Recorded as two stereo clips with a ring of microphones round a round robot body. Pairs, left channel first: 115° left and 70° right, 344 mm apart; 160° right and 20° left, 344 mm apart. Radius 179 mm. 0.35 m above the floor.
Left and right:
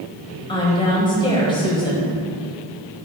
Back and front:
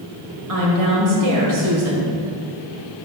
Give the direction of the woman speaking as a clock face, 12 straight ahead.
11 o'clock.